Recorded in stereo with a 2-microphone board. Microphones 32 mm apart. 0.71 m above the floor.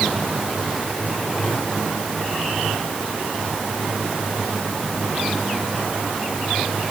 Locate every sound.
Only background noise.